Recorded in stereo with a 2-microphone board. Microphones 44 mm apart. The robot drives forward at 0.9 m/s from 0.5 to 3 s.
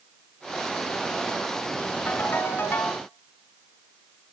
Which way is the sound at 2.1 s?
45° left (ahead or behind).